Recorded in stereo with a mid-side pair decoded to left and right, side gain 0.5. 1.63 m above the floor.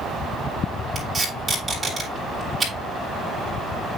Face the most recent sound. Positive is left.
turn(degrees=-25)